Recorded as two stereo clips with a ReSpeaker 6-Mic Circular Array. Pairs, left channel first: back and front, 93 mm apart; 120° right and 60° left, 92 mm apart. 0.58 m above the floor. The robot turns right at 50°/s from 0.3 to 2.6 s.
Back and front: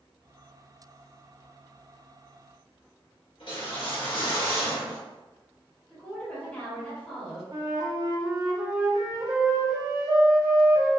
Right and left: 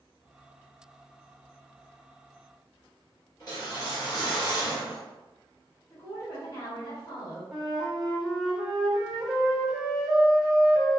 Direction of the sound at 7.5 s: 20° right.